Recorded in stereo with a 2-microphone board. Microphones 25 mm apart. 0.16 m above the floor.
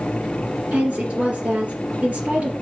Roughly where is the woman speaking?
Right.